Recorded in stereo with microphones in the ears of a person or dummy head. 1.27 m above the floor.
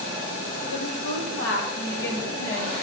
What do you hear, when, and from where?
0.7 s a woman speaking: 75° left (ahead or behind), 4 m; by 2.7 s 45° left (ahead or behind), 3 m